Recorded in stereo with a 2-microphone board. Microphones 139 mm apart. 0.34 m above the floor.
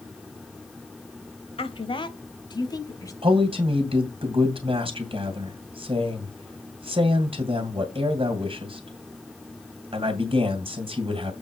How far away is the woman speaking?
About 1.3 m.